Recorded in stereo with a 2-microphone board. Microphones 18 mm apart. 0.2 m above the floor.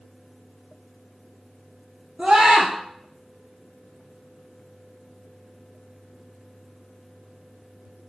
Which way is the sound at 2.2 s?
70° right (ahead or behind).